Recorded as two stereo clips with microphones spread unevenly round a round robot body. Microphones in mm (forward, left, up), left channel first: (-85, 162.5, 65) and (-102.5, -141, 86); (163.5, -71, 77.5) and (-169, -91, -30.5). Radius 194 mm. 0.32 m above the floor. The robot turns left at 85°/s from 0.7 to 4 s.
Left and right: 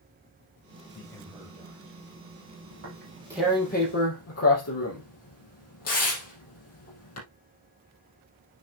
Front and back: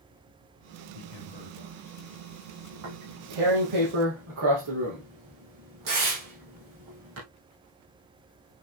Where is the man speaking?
25° left, 1.7 m; by 2.6 s 120° right, 1.7 m.